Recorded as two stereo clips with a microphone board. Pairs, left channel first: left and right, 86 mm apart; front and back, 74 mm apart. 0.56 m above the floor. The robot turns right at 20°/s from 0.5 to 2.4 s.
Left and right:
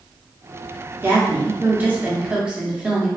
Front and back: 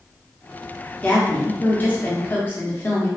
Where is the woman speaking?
50° right, 0.7 m; by 3.1 s 20° right, 0.7 m.